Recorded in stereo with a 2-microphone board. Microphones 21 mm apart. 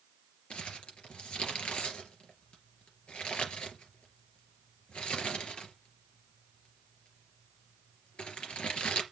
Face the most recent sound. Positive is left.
turn(degrees=65)  # may be behind; listen again after turning